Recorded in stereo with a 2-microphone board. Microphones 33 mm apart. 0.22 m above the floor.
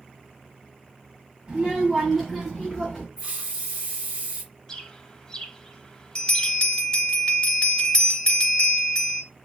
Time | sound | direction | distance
1.5 | a child speaking | 15° right (ahead or behind) | 1.0 m
3.2 | a hiss | 30° right (ahead or behind) | 2 m
4.7 | a bird | 20° left (ahead or behind) | 0.6 m
6.2 | a bell | 25° left (ahead or behind) | 1.2 m